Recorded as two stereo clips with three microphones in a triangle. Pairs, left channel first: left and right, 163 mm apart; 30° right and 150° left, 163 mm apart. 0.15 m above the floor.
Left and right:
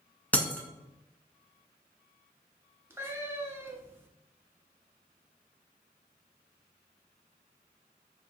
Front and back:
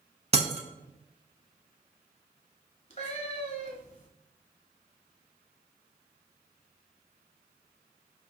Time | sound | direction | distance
0.3 | breaking glass | 165° left | 0.6 m
2.9 | a cat meowing | 20° right | 0.8 m